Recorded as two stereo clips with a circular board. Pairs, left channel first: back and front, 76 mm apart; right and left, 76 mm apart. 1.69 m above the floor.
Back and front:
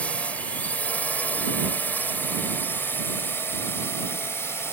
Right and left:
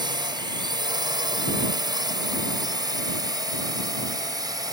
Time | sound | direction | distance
0.0 | a drone | 110° left | ?